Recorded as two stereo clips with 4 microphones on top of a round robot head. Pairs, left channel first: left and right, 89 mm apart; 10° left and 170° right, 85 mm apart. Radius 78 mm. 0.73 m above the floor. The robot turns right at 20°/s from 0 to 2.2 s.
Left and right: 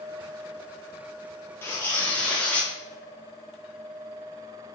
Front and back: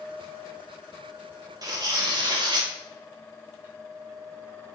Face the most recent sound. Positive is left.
turn(degrees=165)